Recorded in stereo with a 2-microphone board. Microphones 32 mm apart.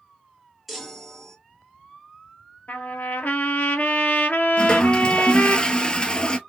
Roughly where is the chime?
Centre.